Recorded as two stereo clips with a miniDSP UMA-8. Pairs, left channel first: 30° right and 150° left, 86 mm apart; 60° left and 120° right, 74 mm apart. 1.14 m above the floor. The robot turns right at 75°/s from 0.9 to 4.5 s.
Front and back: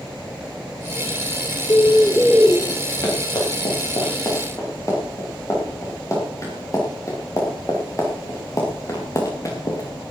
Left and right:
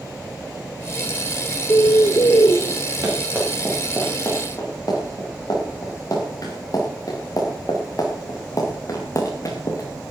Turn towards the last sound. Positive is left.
turn(degrees=20)